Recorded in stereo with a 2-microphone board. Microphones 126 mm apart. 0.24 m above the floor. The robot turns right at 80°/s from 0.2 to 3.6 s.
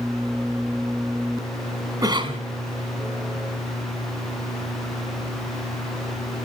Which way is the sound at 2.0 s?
145° right.